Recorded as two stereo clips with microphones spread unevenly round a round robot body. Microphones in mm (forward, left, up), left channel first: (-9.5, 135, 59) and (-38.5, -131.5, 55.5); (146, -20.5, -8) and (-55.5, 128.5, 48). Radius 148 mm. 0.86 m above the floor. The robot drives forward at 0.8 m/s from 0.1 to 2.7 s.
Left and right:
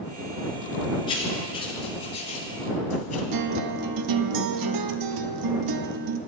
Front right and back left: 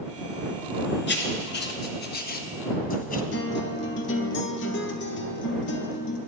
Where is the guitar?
90° right, 0.7 m.